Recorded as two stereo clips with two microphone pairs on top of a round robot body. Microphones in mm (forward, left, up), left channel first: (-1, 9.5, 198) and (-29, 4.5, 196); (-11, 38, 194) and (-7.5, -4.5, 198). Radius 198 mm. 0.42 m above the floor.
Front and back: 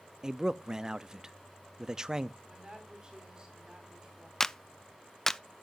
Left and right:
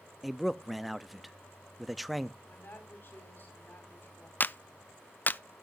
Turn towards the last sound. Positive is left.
turn(degrees=85)